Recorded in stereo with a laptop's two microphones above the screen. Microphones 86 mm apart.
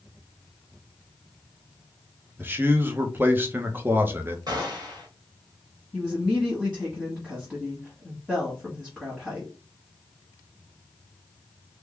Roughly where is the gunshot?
Right.